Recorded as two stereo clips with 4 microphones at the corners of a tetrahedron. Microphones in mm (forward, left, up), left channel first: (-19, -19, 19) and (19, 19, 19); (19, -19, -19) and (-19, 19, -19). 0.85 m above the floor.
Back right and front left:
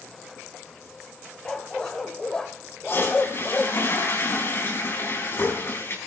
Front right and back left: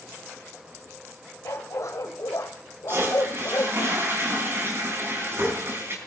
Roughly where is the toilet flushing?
Behind.